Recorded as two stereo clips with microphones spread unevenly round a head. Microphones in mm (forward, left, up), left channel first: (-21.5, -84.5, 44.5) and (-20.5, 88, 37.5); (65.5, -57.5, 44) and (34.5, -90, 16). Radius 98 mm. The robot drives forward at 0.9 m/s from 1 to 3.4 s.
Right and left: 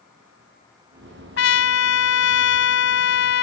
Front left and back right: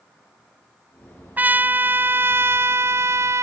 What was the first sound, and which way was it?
A trumpet, 70° right.